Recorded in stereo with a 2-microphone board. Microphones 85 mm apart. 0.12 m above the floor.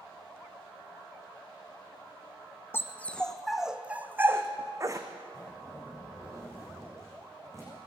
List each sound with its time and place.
2.7 s a dog barking: 25° left (ahead or behind), 1.4 m; by 5.1 s 40° right (ahead or behind), 2 m
5.3 s a zipper: 35° right (ahead or behind), 8.5 m